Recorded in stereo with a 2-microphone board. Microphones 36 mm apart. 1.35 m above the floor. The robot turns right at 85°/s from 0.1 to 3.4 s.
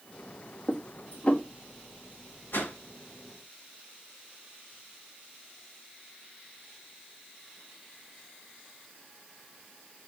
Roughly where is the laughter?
No laughter in this recording.